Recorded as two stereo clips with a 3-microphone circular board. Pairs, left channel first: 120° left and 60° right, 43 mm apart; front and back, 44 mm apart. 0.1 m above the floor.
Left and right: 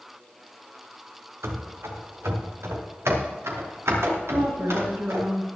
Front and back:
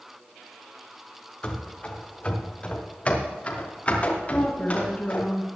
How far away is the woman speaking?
About 3.5 m.